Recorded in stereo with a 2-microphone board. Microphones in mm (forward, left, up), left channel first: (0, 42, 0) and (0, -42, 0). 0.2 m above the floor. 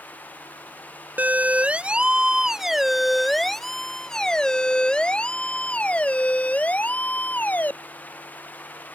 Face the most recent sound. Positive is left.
turn(degrees=20)  # may be behind; listen again after turning